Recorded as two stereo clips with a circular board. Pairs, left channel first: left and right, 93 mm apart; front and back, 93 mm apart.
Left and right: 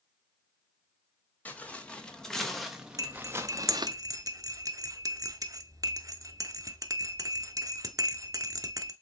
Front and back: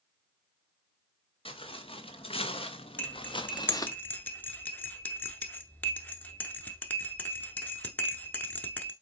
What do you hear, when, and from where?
1.4 s footsteps: 15° left, 1.9 m; by 4.0 s 55° right, 0.8 m
3.0 s cutlery clinking: 65° right, 0.8 m